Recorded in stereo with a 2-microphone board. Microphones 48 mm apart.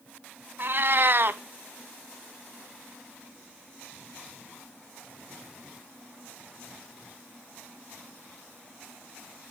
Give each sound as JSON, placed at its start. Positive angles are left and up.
{"t": 0.6, "sound": "a cat meowing", "side_deg": -50, "distance_m": 0.8}